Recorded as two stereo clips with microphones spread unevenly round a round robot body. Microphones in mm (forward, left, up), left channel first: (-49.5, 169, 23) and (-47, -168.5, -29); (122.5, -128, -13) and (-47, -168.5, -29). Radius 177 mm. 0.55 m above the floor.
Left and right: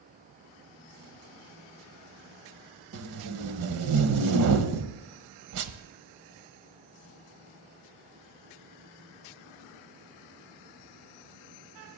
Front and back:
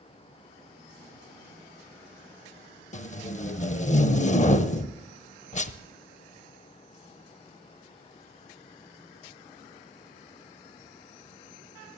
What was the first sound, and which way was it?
Tape being pulled, 40° right.